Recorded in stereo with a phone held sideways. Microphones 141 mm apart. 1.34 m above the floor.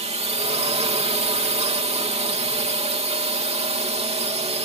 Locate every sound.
0.0 s a drone: 45° right (ahead or behind)